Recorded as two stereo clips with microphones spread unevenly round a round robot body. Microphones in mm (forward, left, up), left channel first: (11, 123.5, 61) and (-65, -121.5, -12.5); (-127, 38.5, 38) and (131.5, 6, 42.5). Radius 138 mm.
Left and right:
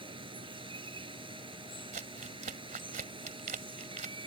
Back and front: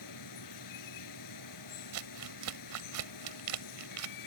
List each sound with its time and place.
0.0 s running water: straight behind
1.9 s crumpling: 40° right